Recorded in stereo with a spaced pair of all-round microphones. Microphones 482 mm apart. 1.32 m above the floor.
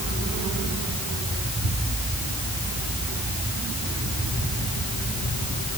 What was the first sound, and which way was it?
Only background noise.